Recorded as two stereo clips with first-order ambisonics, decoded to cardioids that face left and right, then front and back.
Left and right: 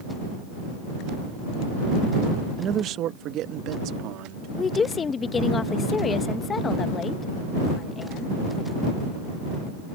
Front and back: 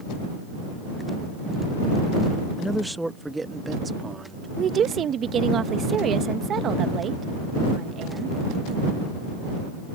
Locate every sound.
2.6 s a man speaking: 80° right; by 4.5 s 110° right
4.6 s a woman speaking: 145° left